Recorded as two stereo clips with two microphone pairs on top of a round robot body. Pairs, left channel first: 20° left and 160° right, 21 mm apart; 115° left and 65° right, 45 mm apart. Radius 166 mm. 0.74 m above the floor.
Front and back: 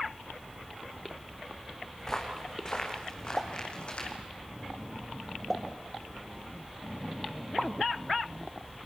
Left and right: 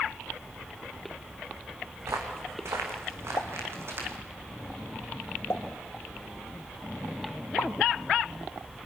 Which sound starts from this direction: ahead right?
Footsteps, at 2.0 s.